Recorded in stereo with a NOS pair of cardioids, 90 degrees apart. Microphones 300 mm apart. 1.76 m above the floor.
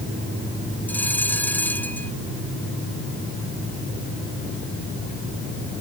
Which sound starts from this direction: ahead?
A bell, at 0.9 s.